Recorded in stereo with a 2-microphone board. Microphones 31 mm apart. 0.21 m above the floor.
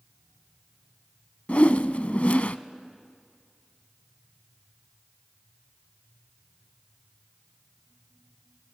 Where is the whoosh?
45° left (ahead or behind), 0.5 m.